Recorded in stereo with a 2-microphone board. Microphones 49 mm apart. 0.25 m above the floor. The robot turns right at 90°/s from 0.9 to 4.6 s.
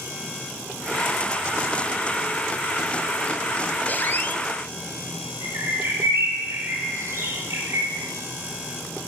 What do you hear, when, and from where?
3.9 s a squeak: 60° left, 0.5 m; by 4.4 s 110° left, 0.5 m
5.4 s a bird: 70° right (ahead or behind), 0.9 m